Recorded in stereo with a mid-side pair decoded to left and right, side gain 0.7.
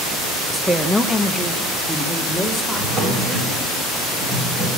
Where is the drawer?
40° right, 4 m.